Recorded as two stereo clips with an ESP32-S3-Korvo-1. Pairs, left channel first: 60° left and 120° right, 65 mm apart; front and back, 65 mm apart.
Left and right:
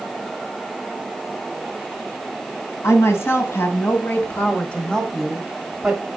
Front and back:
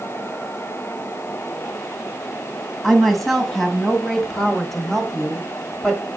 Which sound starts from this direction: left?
A woman speaking, at 2.8 s.